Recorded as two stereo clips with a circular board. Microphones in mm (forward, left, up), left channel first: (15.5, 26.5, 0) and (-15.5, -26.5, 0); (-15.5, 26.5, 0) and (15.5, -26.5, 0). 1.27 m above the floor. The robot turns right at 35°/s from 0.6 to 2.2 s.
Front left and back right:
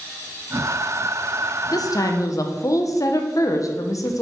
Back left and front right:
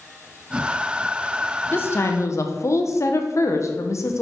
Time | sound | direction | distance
1.7 | a woman speaking | 65° left | 0.7 m